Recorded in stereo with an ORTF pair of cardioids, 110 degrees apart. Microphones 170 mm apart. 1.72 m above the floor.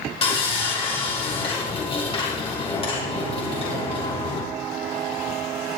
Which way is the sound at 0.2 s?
35° left.